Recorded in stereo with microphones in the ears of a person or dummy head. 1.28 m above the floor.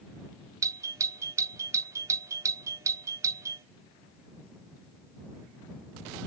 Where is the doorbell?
15° right (ahead or behind).